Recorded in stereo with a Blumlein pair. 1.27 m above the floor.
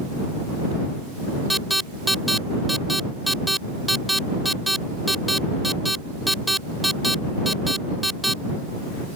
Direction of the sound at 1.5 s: Straight ahead.